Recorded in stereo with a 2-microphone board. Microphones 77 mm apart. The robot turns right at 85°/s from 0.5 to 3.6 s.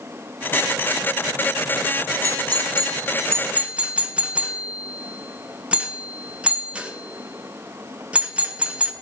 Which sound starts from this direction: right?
A doorbell, at 2.2 s.